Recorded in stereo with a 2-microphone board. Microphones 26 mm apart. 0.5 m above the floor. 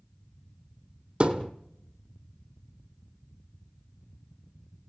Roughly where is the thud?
Right.